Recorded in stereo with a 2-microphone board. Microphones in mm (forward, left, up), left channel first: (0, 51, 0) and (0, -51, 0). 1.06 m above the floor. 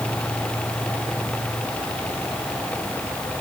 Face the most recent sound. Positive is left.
No sound to turn to.